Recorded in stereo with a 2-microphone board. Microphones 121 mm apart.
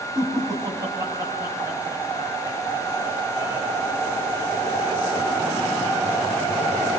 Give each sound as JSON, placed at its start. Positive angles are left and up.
{"t": 0.1, "sound": "laughter", "side_deg": -25, "distance_m": 6.5}